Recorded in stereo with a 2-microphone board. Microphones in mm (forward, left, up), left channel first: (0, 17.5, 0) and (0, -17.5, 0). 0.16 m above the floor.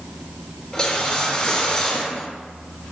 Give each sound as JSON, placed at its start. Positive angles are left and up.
{"t": 0.7, "sound": "a whoosh", "side_deg": 15, "distance_m": 1.7}